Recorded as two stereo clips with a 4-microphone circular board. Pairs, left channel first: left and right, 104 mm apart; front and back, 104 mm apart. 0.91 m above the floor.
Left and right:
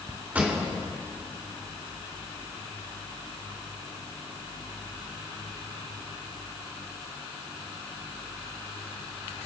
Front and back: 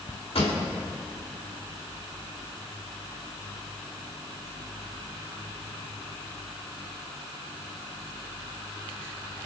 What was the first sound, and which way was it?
A pop, 15° right.